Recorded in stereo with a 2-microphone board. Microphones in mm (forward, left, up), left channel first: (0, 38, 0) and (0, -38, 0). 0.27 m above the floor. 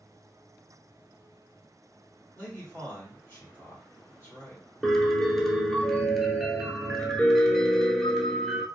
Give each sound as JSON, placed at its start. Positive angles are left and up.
{"t": 2.4, "sound": "a man speaking", "side_deg": 25, "distance_m": 1.4}
{"t": 4.8, "sound": "a piano", "side_deg": 5, "distance_m": 0.8}